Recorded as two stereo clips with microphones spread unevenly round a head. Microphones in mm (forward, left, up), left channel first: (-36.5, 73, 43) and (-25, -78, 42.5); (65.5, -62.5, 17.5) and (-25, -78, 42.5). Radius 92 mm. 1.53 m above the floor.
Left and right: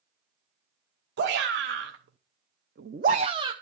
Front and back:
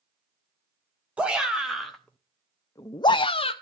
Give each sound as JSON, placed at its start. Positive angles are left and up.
{"t": 1.2, "sound": "a shout", "azimuth_deg": -95, "distance_m": 1.2}